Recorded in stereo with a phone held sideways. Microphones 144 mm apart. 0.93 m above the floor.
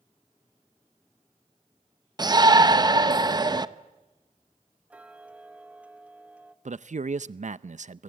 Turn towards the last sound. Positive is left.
turn(degrees=-60)  # may be behind; listen again after turning